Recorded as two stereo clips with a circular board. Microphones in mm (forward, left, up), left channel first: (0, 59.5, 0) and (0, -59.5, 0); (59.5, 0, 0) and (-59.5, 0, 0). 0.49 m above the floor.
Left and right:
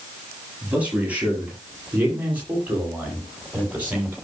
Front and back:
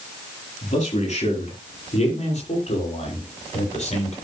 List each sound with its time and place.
0.6 s a man speaking: 15° right, 9.5 m